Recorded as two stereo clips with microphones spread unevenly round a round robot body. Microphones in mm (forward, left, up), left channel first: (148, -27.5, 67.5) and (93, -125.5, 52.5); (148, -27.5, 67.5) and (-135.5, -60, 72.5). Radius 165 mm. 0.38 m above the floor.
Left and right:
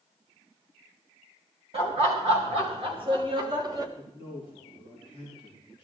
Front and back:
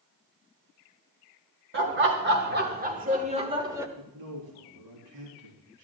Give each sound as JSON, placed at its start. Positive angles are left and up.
{"t": 1.7, "sound": "laughter", "azimuth_deg": -130, "distance_m": 3.0}
{"t": 4.0, "sound": "a man speaking", "azimuth_deg": -175, "distance_m": 3.0}